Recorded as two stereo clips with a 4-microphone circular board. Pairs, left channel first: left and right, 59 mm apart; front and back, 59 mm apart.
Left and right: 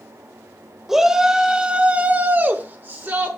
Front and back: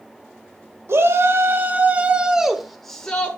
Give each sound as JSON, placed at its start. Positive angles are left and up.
{"t": 0.9, "sound": "a shout", "azimuth_deg": -170, "distance_m": 1.4}